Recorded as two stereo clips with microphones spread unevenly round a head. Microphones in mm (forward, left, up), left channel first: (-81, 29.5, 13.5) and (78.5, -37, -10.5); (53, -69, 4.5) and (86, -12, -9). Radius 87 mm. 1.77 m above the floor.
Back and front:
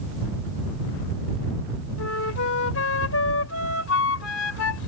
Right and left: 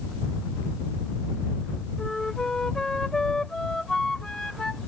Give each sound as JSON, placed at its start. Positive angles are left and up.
{"t": 2.0, "sound": "a flute", "azimuth_deg": 155}